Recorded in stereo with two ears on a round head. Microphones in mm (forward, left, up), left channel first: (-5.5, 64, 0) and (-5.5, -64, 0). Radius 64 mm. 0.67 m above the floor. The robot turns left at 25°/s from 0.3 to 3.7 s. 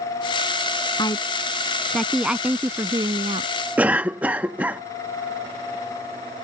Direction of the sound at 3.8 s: 10° right (ahead or behind).